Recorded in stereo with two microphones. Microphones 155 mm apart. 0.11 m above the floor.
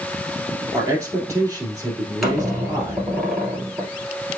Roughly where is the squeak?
Centre.